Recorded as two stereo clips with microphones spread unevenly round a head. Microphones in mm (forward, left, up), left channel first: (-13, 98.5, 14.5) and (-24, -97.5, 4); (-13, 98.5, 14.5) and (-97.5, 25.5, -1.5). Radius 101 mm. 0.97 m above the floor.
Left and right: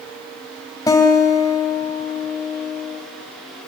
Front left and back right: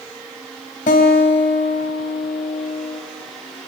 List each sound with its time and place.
0.9 s a guitar: 15° left, 3 m